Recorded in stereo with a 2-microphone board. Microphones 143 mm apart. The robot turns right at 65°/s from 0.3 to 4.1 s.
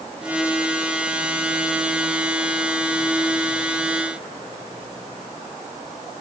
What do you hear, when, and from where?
Only background noise.